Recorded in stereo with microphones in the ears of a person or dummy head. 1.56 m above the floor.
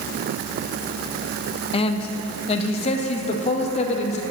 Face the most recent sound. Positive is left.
turn(degrees=45)  # may be behind; listen again after turning